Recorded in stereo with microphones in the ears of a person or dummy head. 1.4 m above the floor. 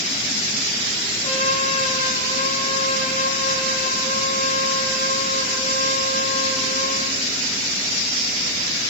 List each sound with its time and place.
1.2 s a trumpet: 35° left (ahead or behind), 7.5 m